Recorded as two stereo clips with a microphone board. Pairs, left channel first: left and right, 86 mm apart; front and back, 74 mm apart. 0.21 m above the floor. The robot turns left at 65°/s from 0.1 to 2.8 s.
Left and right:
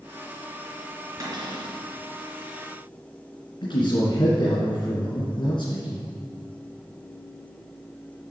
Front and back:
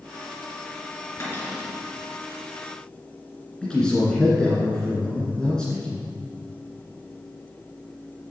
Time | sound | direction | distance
1.2 | a cupboard door | 50° right | 3.5 m
3.6 | a man speaking | 80° left | 2.5 m